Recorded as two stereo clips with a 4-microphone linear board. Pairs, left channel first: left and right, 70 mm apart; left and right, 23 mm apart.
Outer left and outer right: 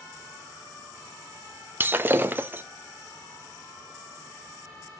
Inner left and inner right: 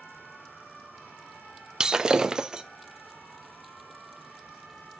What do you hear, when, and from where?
1.8 s breaking glass: 30° right (ahead or behind), 0.7 m